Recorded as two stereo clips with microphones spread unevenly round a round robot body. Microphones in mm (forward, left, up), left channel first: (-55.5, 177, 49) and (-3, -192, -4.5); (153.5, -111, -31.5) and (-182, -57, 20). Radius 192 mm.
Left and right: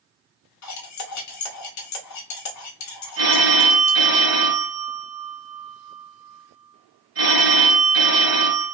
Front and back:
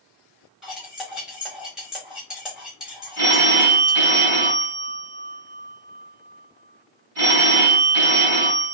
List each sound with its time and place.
0.6 s cutlery clinking: 70° left, 0.6 m
3.2 s a phone ringing: 140° right, 1.8 m